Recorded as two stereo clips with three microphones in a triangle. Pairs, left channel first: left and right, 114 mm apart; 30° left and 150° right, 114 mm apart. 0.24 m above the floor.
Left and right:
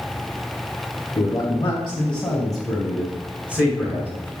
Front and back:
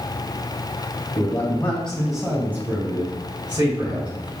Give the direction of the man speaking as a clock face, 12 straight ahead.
10 o'clock.